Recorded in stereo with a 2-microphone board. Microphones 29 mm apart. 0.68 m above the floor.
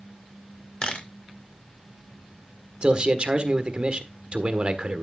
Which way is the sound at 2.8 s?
40° right (ahead or behind).